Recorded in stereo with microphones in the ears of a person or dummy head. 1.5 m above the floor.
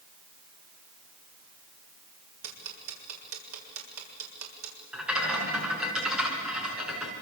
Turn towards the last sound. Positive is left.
turn(degrees=-5)  # may be behind; listen again after turning